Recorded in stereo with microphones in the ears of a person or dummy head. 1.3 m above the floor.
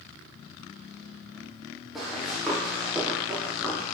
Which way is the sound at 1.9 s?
5° right (ahead or behind).